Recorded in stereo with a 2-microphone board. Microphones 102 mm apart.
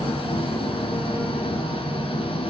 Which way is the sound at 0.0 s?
65° left (ahead or behind).